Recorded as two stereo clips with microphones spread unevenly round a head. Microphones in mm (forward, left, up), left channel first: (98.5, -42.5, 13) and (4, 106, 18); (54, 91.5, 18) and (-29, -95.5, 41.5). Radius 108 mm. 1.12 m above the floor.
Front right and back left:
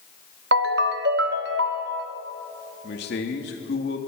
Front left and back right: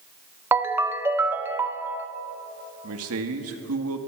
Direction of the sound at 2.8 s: 100° right.